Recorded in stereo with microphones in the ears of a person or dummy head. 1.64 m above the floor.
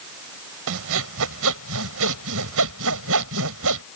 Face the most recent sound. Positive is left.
turn(degrees=-70)  # may be behind; listen again after turning